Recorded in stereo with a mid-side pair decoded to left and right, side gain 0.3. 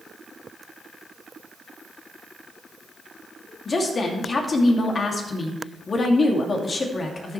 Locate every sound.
3.6 s a woman speaking: 55° left, 2.5 m